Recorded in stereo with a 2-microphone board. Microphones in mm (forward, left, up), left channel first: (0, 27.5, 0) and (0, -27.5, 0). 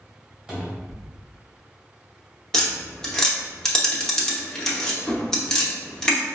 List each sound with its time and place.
0.5 s a cupboard door: 15° right (ahead or behind), 1.5 m
2.5 s tapping: 10° left (ahead or behind), 0.8 m